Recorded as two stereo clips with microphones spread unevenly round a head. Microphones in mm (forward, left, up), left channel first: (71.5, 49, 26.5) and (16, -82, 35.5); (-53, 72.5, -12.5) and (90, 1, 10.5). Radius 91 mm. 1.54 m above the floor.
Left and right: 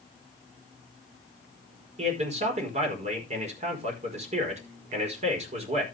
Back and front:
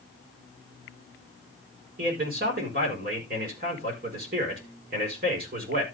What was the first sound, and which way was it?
A man speaking, 70° right.